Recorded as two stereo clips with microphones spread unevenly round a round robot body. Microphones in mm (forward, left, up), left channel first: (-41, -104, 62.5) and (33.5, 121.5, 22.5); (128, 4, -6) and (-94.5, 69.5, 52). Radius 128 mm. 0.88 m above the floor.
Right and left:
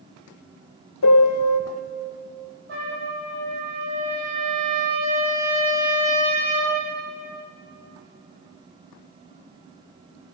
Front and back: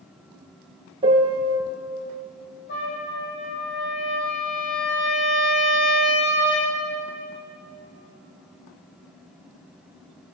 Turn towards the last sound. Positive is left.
turn(degrees=30)